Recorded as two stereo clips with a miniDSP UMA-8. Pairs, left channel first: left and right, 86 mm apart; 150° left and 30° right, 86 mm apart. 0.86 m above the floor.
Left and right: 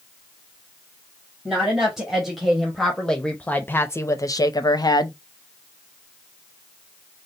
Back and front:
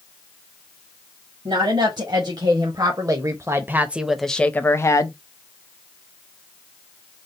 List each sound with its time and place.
1.4 s a woman speaking: 10° right, 1.5 m; by 5.2 s 120° left, 0.7 m